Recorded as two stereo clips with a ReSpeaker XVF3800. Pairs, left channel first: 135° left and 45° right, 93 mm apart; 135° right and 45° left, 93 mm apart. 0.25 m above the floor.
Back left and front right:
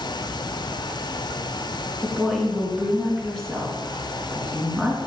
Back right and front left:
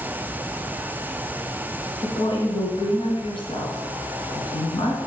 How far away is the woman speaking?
About 3.5 m.